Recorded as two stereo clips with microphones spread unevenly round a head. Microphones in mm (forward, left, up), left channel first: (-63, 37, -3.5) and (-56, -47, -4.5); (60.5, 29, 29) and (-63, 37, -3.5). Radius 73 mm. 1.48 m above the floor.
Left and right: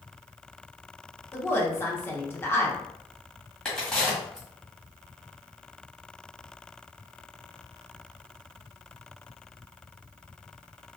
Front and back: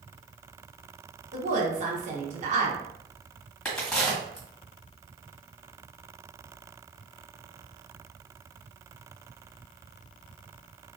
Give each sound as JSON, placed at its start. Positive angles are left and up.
{"t": 1.3, "sound": "a woman speaking", "azimuth_deg": 155, "distance_m": 1.1}
{"t": 3.6, "sound": "a crack", "azimuth_deg": 25, "distance_m": 1.4}